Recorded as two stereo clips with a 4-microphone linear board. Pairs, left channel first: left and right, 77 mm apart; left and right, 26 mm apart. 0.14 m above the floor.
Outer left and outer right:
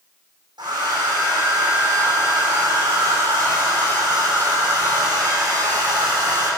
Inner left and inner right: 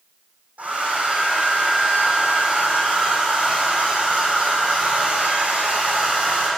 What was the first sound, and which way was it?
A hair dryer, 80° right.